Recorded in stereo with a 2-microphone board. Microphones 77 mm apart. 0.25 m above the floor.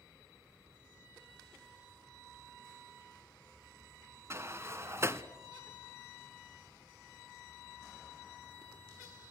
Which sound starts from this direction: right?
A sliding door, at 4.3 s.